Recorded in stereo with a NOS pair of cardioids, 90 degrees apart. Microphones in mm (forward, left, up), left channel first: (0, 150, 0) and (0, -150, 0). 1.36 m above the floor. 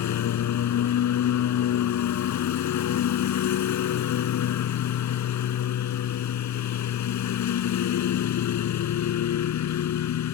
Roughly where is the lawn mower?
Left.